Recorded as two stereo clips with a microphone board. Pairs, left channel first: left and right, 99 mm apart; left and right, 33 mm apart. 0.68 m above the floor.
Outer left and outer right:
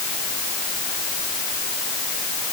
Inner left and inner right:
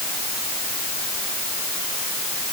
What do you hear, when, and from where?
Only background noise.